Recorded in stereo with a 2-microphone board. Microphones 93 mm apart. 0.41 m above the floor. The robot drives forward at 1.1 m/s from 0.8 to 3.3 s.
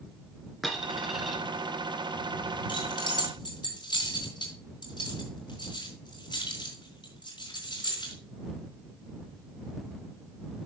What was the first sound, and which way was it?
A dropped coin, centre (ahead or behind).